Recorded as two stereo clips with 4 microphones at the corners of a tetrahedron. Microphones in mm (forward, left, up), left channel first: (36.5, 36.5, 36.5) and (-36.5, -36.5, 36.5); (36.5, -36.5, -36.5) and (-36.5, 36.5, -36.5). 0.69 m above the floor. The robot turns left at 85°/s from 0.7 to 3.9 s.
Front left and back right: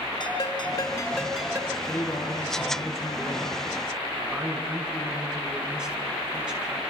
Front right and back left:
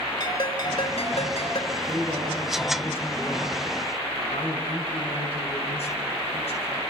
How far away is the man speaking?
About 7 m.